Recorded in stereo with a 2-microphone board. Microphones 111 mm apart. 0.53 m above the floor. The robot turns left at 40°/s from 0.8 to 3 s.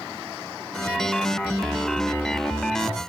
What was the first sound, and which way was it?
Only background noise.